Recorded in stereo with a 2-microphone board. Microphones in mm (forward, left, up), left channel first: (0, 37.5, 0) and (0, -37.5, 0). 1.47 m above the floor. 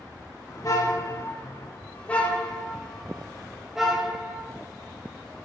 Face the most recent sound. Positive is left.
turn(degrees=-15)  # may be behind; listen again after turning